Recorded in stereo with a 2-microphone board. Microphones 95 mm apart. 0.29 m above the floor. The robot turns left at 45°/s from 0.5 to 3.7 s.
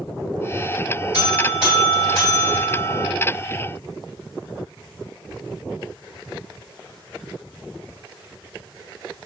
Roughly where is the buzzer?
Behind right.